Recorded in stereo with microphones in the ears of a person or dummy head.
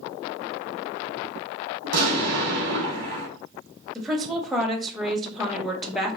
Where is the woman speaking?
Centre (ahead or behind), 0.9 m.